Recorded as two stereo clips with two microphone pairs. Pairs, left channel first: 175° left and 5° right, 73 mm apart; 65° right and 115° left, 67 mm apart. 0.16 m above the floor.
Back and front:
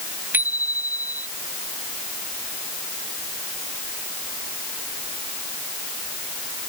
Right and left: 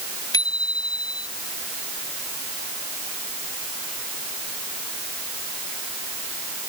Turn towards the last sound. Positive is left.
turn(degrees=-65)